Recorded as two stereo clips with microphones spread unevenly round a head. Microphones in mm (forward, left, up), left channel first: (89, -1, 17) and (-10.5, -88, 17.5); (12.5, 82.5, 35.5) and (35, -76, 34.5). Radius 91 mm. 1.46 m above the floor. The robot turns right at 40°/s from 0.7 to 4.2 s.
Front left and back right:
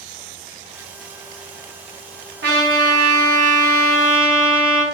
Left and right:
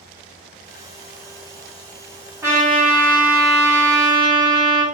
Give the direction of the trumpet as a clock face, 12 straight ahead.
5 o'clock.